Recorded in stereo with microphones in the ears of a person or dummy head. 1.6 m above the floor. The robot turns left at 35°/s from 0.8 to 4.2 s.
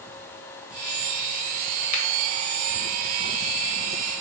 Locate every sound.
1.9 s a finger snap: 40° left (ahead or behind), 0.9 m